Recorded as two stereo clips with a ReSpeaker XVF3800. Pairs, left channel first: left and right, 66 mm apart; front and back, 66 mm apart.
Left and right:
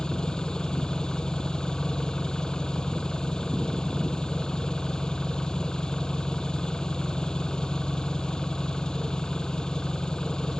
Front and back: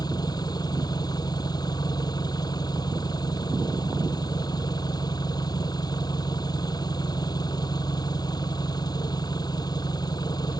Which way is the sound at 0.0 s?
15° left.